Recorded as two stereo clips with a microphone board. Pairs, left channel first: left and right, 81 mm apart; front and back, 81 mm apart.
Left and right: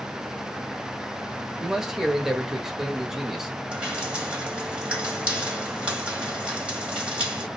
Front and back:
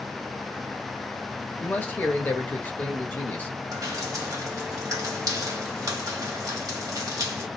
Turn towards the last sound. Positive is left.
turn(degrees=-160)